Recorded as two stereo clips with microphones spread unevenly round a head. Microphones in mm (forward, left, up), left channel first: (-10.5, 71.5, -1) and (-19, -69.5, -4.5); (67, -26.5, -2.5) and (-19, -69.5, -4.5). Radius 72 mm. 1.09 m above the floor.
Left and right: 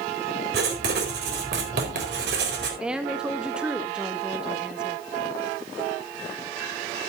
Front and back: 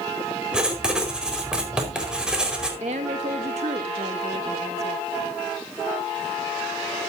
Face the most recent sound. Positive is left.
turn(degrees=-175)